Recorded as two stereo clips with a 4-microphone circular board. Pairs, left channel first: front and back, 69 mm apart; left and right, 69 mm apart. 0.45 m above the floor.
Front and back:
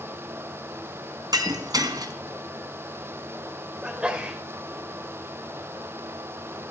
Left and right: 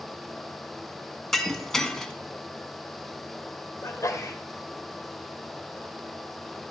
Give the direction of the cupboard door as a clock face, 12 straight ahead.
I don't hear a cupboard door.